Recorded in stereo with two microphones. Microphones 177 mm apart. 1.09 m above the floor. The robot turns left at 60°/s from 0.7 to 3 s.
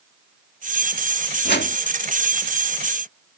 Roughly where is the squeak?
I don't hear a squeak.